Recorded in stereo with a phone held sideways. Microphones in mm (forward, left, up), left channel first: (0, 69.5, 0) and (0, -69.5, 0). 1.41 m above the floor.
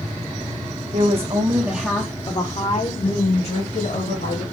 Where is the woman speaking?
55° right (ahead or behind), 1.3 m; by 4.4 s 75° left (ahead or behind), 3 m.